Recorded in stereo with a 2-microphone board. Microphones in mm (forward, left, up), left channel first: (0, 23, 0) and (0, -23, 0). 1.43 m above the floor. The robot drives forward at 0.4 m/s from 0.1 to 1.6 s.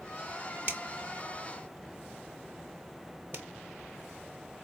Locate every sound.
0.7 s a finger snap: 45° right (ahead or behind), 1.2 m; by 4.6 s 55° right (ahead or behind), 1.0 m